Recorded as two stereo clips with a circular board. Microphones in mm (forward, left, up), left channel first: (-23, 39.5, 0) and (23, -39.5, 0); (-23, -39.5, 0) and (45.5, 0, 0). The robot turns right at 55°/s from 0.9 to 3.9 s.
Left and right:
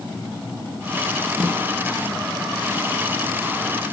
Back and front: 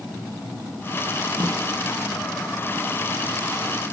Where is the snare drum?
20° left, 9 m; by 1.6 s 35° left, 9 m.